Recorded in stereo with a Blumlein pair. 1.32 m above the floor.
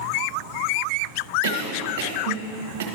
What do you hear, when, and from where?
1.4 s a cough: 55° right, 1.3 m